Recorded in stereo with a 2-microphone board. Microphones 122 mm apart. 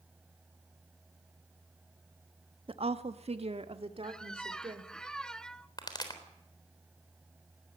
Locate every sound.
2.7 s a woman speaking: 45° right (ahead or behind), 1.2 m; by 4.9 s 40° right (ahead or behind), 3.5 m
4.0 s a squeak: 5° left (ahead or behind), 0.7 m
5.8 s a pop: 35° left (ahead or behind), 3.5 m